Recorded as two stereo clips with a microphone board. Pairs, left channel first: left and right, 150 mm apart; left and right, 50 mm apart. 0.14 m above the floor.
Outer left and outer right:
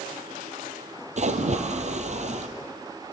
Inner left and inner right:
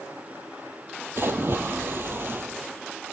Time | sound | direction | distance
1.2 | a splash | 50° right (ahead or behind) | 1.4 m